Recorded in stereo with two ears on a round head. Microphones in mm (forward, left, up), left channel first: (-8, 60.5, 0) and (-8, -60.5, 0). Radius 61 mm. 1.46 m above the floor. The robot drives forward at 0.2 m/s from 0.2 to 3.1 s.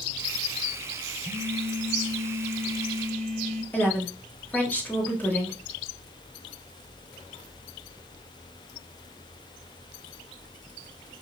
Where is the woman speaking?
15° left (ahead or behind), 1.9 m.